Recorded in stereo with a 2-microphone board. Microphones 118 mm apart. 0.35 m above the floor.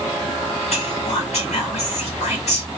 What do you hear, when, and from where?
0.7 s whispering: 65° left (ahead or behind), 2 m